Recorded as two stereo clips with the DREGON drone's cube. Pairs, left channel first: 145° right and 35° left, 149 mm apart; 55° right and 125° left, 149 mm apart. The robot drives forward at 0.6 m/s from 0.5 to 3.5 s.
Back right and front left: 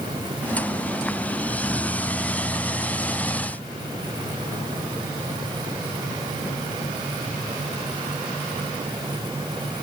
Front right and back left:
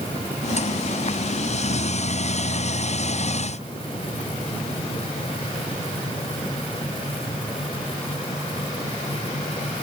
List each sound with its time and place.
Only background noise.